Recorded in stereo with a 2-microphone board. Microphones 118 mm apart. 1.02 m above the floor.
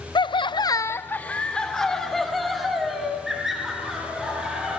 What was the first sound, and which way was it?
Laughter, 40° left (ahead or behind).